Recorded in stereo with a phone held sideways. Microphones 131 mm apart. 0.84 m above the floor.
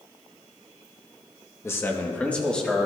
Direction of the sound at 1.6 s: 20° left (ahead or behind).